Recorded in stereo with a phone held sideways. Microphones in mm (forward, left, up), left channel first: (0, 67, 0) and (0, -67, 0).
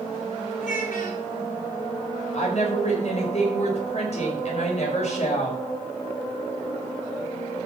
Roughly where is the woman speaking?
Left.